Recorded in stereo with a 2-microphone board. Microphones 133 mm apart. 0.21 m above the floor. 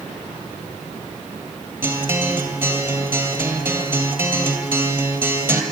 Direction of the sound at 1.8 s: 15° right (ahead or behind).